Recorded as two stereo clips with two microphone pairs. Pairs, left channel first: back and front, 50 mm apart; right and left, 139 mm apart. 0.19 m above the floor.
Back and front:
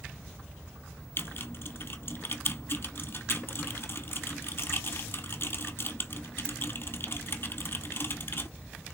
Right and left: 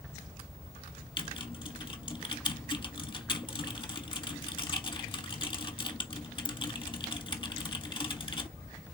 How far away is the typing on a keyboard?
About 1.1 m.